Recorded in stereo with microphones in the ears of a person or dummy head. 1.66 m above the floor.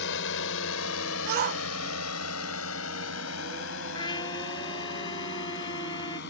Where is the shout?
50° right (ahead or behind).